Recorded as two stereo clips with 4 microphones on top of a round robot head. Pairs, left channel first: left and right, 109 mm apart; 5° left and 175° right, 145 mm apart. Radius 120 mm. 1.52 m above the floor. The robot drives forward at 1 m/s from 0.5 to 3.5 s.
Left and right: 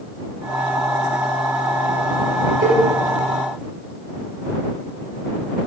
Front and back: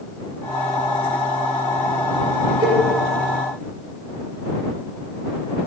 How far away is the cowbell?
About 1.4 m.